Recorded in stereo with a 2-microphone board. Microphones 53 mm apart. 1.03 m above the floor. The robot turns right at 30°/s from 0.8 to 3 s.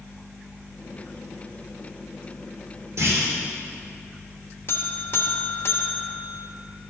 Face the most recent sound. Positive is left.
turn(degrees=50)  # may be behind; listen again after turning